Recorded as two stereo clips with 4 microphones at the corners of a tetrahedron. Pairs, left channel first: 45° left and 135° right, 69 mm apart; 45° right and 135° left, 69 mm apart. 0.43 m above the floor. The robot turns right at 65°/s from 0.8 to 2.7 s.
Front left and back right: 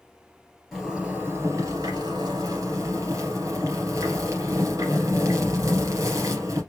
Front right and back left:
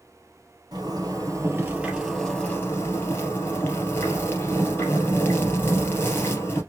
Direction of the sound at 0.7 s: 140° left.